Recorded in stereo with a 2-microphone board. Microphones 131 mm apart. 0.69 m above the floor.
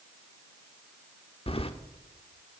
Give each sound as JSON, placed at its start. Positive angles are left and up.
{"t": 1.5, "sound": "keys jangling", "side_deg": 45, "distance_m": 0.9}